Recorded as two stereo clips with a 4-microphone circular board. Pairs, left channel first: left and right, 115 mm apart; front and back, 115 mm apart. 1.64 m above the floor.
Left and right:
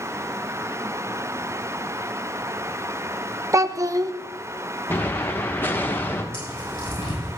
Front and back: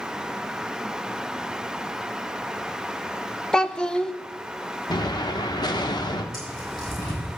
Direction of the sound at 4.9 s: 25° left.